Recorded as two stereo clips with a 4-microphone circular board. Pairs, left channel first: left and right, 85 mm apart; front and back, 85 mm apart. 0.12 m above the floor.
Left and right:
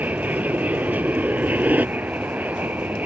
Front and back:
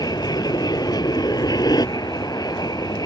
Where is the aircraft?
20° right; by 3.1 s 25° right.